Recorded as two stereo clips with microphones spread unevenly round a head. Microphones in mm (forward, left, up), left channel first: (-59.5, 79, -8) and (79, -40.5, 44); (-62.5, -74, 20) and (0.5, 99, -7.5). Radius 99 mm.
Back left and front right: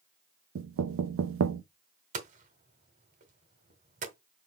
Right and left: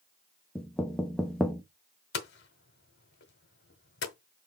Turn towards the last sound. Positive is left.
turn(degrees=-85)